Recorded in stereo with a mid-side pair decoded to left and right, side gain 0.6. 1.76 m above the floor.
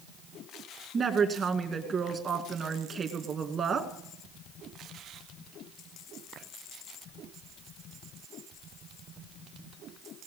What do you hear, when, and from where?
0.9 s a woman speaking: 40° right, 2.5 m